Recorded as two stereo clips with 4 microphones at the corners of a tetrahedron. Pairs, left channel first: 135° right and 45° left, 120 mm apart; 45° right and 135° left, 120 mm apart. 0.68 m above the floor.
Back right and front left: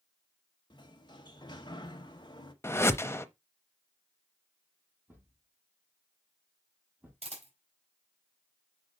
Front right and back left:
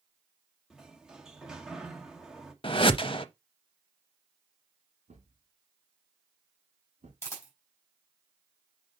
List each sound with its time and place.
0.7 s a sliding door: 145° right, 1.1 m
2.6 s a whoosh: 75° right, 0.6 m
5.1 s a thud: 120° left, 3 m
7.2 s a camera shutter: 20° left, 4 m